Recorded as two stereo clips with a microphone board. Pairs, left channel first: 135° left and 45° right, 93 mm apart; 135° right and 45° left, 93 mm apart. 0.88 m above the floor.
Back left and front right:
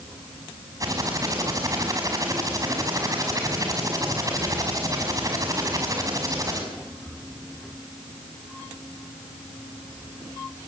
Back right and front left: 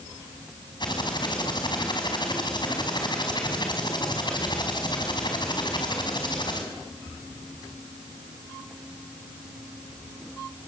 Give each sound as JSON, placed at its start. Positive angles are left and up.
{"t": 0.8, "sound": "typing on a keyboard", "azimuth_deg": -100, "distance_m": 5.5}